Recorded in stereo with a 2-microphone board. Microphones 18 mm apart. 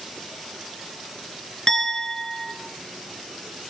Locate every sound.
1.7 s a clink: 25° left (ahead or behind), 3 m